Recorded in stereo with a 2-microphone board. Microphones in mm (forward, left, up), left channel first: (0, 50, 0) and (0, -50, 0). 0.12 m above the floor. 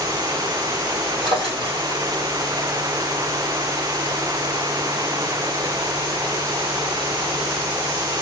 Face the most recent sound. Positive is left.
turn(degrees=-60)  # may be behind; listen again after turning